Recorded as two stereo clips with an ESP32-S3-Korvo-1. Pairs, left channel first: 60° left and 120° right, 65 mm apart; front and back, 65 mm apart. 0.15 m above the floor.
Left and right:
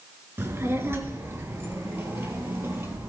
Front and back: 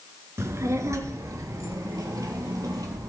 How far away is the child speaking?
About 1.3 m.